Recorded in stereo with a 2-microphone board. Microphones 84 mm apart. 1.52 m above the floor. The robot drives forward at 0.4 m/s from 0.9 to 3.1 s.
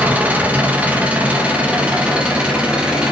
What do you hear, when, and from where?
0.0 s an engine running: 20° right (ahead or behind), 1.7 m; by 3.1 s 15° right (ahead or behind), 2.5 m